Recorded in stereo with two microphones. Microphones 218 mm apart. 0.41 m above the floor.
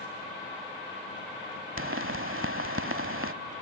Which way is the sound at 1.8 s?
75° right (ahead or behind).